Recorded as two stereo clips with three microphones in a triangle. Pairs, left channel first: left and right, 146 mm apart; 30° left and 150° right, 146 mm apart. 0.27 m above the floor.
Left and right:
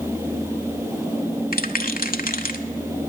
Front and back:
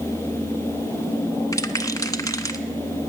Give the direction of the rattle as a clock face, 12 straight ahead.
9 o'clock.